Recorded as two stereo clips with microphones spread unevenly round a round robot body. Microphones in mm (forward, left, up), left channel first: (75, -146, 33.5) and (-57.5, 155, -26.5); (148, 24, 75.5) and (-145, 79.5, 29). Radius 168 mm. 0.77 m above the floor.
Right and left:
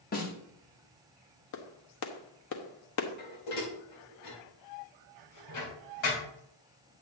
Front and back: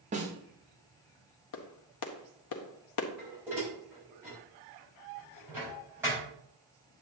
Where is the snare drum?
135° right, 1.8 m.